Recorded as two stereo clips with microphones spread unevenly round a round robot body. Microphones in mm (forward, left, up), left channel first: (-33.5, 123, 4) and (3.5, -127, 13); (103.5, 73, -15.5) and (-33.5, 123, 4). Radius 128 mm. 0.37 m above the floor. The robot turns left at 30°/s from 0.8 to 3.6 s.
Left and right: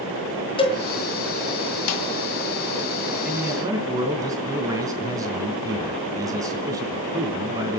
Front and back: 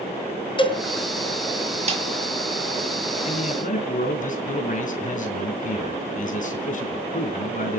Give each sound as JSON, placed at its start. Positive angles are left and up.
{"t": 0.6, "sound": "a cowbell", "azimuth_deg": 30, "distance_m": 3.5}
{"t": 1.9, "sound": "a snare drum", "azimuth_deg": 120, "distance_m": 2.5}
{"t": 3.2, "sound": "a man speaking", "azimuth_deg": 5, "distance_m": 3.0}